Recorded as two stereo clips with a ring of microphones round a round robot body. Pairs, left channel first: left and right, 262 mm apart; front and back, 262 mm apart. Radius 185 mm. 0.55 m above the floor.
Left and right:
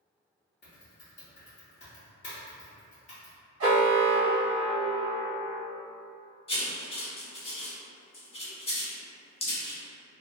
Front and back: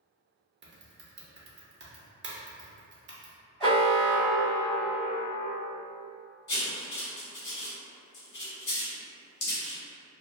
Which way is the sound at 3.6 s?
90° right.